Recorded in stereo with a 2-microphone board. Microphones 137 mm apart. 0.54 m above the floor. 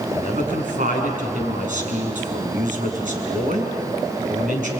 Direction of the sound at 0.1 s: 70° right (ahead or behind).